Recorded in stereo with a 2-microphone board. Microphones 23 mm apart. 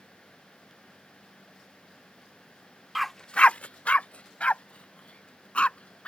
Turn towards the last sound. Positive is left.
turn(degrees=60)  # may be behind; listen again after turning